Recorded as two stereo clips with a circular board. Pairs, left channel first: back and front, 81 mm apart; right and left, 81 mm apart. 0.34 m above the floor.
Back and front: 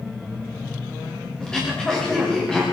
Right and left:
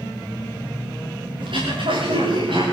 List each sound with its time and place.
1.4 s throat clearing: 100° left, 10 m